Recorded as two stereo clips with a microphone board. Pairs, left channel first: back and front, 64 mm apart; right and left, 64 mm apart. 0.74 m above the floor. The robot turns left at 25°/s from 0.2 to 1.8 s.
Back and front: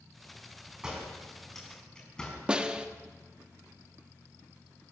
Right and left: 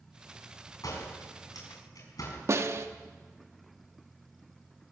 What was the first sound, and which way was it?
A door slam, 80° right.